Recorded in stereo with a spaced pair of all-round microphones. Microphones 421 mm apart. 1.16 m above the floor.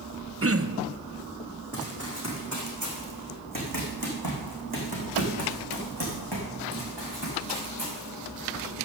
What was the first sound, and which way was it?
Throat clearing, 35° right (ahead or behind).